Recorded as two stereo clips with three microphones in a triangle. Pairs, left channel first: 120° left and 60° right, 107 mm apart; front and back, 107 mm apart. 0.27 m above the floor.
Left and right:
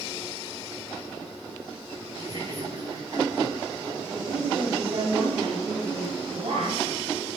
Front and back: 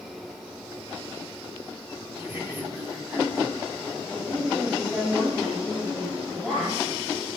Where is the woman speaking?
100° right, 9.5 m.